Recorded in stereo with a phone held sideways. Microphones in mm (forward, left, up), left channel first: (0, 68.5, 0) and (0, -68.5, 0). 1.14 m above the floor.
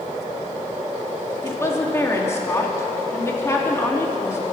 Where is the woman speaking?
20° left (ahead or behind), 2.5 m.